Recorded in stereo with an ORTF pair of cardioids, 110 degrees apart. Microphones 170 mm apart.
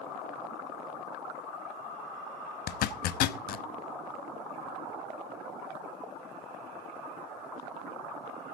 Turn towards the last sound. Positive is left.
turn(degrees=70)